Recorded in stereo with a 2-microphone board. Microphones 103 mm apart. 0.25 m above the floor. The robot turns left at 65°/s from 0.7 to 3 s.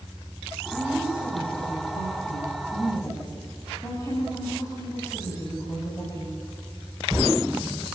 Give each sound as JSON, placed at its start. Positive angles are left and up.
{"t": 0.7, "sound": "a woman speaking", "azimuth_deg": 180, "distance_m": 8.0}